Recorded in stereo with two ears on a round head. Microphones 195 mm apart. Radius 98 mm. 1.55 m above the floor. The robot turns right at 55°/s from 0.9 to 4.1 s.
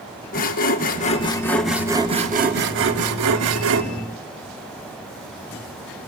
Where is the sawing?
140° left, 1.9 m; by 3.8 s 60° right, 1.9 m.